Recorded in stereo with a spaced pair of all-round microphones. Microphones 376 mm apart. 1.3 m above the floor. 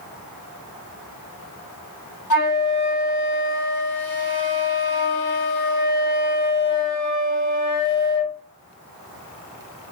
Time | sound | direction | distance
2.3 | a flute | 55° left (ahead or behind) | 1.1 m